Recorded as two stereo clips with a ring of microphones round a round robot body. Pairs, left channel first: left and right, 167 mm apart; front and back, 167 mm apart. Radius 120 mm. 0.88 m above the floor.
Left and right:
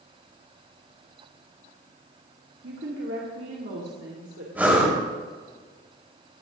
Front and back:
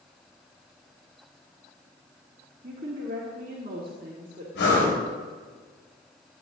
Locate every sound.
2.6 s a woman speaking: 125° right, 1.7 m
4.5 s breathing: 10° right, 5 m